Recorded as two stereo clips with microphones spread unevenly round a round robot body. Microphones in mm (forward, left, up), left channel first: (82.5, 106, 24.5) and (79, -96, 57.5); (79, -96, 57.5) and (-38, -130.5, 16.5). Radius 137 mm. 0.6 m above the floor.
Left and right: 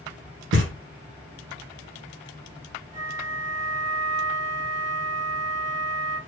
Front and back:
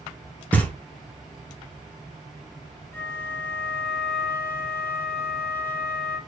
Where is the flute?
80° right, 1.0 m.